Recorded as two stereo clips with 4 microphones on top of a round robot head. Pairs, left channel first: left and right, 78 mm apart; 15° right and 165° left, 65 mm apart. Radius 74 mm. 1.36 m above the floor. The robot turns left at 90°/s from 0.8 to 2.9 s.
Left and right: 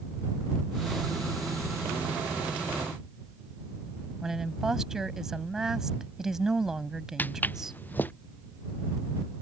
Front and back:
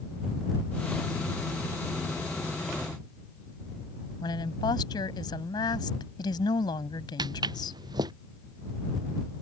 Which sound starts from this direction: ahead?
A woman speaking, at 4.2 s.